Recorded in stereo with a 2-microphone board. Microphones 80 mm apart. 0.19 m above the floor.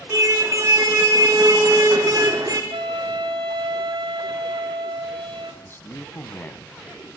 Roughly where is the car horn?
Right.